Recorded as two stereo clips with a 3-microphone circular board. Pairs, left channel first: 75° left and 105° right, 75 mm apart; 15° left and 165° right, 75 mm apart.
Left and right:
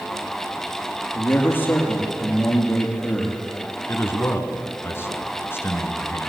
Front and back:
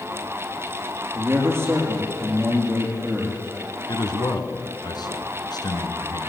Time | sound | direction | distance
1.1 | a man speaking | 140° left | 5.5 m
3.9 | a man speaking | 20° left | 3 m